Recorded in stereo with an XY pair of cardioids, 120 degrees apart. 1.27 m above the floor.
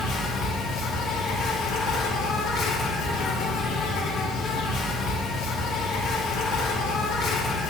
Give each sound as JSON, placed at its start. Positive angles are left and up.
{"t": 0.0, "sound": "an insect", "azimuth_deg": 60, "distance_m": 1.0}